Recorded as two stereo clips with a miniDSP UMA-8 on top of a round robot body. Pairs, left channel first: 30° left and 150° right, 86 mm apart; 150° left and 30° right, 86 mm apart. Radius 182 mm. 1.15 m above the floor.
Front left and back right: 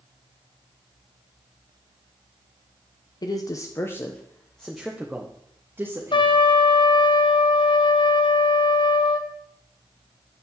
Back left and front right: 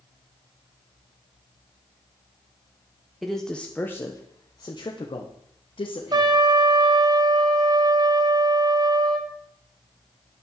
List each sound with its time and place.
3.2 s a man speaking: 60° left, 1.4 m; by 6.4 s 150° left, 2.5 m
6.1 s a trumpet: 10° left, 1.4 m